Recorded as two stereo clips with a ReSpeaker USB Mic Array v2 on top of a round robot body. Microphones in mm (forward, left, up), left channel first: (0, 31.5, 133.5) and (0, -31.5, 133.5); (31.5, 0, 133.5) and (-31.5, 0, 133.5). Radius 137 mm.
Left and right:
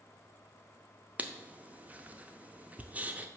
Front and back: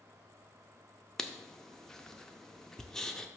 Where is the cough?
No cough in this recording.